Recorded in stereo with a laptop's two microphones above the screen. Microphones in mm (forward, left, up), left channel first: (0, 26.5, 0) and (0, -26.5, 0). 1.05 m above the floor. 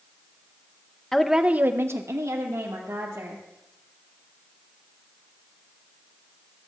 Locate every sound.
1.1 s a woman speaking: 5° left (ahead or behind), 0.6 m; by 3.4 s 75° right (ahead or behind), 1.8 m